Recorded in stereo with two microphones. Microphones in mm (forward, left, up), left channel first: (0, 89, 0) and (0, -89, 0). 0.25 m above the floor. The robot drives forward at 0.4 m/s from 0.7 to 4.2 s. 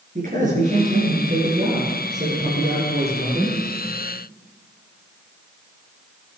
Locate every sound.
0.1 s a man speaking: 45° right (ahead or behind), 4.5 m; by 3.6 s 40° right (ahead or behind), 5 m